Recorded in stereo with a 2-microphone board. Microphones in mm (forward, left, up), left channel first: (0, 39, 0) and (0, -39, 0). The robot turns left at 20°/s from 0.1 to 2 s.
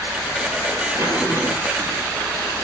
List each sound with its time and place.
0.9 s a zipper: 35° right (ahead or behind), 2.5 m; by 1.9 s 50° right (ahead or behind), 2.5 m